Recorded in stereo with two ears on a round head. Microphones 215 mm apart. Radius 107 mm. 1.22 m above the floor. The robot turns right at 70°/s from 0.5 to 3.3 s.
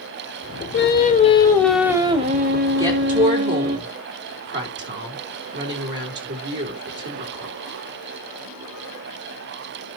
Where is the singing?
110° left, 1.4 m; by 3.8 s 70° right, 1.4 m.